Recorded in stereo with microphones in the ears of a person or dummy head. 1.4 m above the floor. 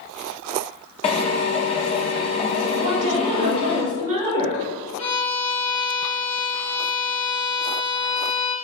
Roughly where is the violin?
Left.